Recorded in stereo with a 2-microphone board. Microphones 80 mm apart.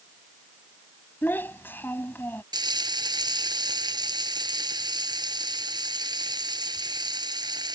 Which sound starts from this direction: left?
A child speaking, at 1.2 s.